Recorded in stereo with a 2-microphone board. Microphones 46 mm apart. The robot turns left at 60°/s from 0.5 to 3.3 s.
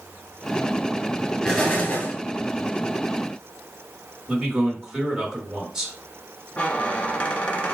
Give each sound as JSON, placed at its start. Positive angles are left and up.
{"t": 1.4, "sound": "an explosion", "azimuth_deg": 165, "distance_m": 1.9}
{"t": 4.3, "sound": "a man speaking", "side_deg": -5, "distance_m": 2.5}
{"t": 6.6, "sound": "a squeak", "side_deg": 30, "distance_m": 1.1}